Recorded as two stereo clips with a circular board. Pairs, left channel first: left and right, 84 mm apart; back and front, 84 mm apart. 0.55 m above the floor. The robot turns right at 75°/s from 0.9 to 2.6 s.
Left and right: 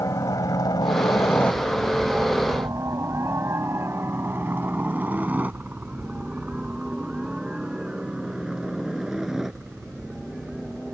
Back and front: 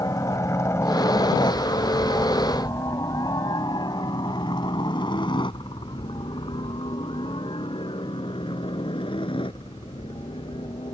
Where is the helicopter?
135° left; by 10.9 s straight behind.